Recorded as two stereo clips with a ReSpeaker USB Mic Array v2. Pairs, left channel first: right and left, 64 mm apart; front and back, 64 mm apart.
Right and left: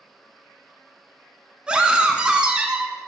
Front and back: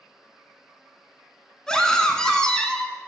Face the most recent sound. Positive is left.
turn(degrees=60)